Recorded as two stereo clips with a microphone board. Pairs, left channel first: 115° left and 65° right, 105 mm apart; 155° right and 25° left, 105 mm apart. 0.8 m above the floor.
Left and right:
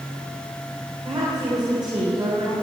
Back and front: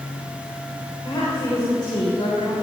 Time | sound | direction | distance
1.1 | a woman speaking | 115° right | 3.5 m